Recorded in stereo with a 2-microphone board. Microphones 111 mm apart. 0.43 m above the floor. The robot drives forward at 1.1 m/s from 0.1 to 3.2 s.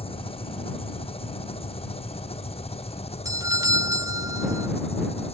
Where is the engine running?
65° left (ahead or behind); by 5.3 s 75° left (ahead or behind).